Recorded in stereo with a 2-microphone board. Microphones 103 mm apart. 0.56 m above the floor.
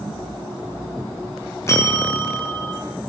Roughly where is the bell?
Left.